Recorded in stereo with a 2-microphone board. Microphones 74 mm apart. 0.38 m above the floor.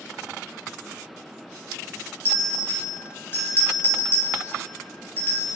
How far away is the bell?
About 0.6 m.